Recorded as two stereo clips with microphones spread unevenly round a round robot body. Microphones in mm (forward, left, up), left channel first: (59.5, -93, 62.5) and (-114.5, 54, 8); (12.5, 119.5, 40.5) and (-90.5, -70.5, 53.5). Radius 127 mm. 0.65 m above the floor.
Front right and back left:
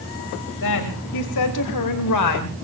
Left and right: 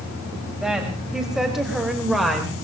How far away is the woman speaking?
About 3.5 m.